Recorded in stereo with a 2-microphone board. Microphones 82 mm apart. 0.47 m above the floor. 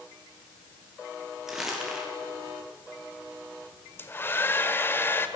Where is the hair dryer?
25° left (ahead or behind), 1.6 m.